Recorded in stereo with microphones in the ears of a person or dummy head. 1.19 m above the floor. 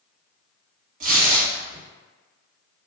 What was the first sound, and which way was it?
Tearing paper, 45° right (ahead or behind).